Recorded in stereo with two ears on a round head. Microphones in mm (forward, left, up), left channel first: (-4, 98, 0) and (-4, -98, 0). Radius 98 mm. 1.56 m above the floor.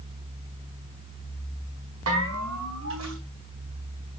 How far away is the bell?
About 5.5 m.